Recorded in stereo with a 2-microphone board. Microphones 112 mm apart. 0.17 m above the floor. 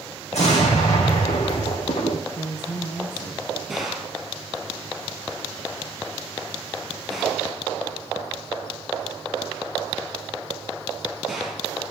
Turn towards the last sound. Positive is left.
turn(degrees=0)  # may be behind; listen again after turning